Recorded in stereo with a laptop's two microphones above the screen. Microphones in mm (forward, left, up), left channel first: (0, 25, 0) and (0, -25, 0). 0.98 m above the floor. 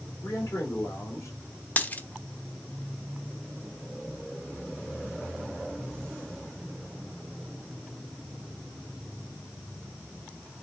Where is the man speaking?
70° left (ahead or behind), 3 m.